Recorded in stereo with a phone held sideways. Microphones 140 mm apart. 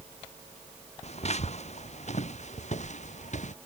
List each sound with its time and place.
1.0 s footsteps: 50° left (ahead or behind); by 3.5 s 60° left (ahead or behind)